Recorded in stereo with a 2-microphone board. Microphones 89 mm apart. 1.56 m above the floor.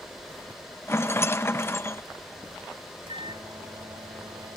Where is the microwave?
70° right (ahead or behind).